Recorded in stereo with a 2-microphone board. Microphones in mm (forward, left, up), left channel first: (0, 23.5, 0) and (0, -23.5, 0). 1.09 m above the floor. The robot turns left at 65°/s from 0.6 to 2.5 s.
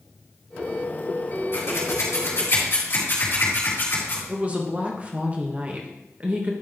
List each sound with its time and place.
1.5 s scissors: 60° left (ahead or behind), 3.5 m; by 4.2 s 55° left (ahead or behind), 3.5 m
4.3 s a woman speaking: 30° right (ahead or behind), 1.3 m